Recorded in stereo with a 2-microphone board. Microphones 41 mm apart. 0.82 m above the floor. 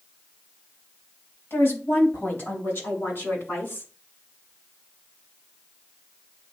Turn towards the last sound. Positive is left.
turn(degrees=55)  # may be behind; listen again after turning